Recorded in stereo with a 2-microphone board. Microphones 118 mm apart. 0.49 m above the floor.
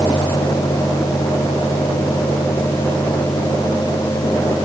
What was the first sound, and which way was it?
Only background noise.